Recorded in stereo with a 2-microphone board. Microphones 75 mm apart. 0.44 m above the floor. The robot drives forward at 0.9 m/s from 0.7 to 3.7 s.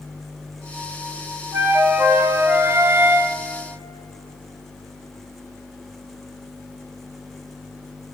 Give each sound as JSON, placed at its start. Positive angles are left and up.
{"t": 1.5, "sound": "a flute", "side_deg": -25, "distance_m": 1.8}